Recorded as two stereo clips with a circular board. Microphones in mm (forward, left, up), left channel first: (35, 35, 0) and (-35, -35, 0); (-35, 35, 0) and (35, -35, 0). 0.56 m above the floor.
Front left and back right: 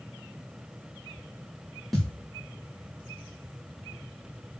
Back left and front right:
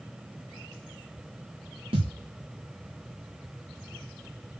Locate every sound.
1.9 s a thud: 40° right, 2.5 m